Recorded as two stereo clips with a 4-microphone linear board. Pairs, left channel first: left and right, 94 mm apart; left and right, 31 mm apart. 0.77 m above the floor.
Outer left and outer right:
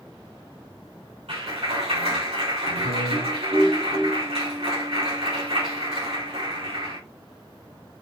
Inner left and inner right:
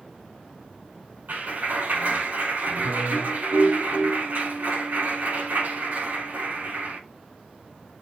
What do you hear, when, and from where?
1.3 s a clap: 85° right, 5.5 m